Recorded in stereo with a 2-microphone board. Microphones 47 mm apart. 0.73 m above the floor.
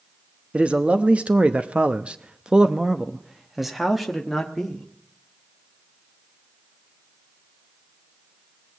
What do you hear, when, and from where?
0.5 s a man speaking: 30° right (ahead or behind), 1.1 m; by 4.9 s 5° left (ahead or behind), 1.6 m